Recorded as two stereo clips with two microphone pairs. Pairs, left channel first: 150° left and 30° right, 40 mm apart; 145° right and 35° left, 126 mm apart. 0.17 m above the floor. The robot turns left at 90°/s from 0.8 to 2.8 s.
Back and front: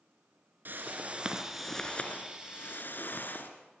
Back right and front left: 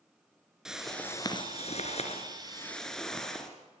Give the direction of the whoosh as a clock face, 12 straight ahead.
2 o'clock.